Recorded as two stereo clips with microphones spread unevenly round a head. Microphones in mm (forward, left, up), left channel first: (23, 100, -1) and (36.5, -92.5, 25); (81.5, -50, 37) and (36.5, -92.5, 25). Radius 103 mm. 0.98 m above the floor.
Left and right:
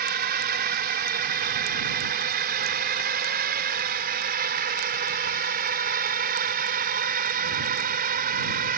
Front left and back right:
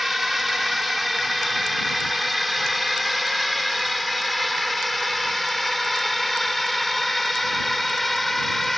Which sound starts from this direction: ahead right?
A drone, at 0.0 s.